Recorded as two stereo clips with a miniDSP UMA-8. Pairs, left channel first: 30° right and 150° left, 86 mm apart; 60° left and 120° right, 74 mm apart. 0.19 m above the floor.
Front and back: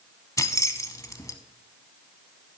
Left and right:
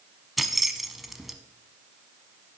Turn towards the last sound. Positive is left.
turn(degrees=-35)